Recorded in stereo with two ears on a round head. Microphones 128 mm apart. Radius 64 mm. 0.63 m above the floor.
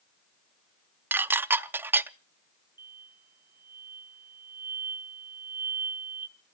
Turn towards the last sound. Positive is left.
turn(degrees=-15)  # may be behind; listen again after turning